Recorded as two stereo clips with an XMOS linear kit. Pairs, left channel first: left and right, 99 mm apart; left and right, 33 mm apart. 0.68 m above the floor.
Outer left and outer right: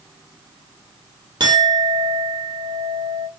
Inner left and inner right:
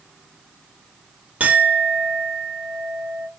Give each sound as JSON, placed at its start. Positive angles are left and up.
{"t": 1.4, "sound": "a clink", "side_deg": -45, "distance_m": 0.8}